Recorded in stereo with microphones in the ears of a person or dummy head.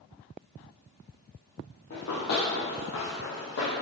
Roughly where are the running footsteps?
Left.